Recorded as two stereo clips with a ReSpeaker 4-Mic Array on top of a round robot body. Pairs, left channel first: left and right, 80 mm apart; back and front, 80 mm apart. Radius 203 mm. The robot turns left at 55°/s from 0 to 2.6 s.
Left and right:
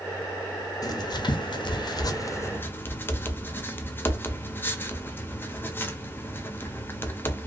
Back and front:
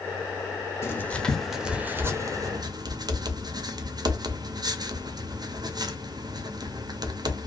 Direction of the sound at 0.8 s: 125° left.